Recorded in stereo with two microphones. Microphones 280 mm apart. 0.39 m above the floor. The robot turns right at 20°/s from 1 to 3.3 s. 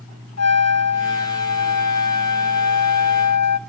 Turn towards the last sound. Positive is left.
turn(degrees=110)